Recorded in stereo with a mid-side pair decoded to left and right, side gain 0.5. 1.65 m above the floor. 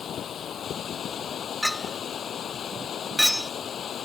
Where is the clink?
5° left.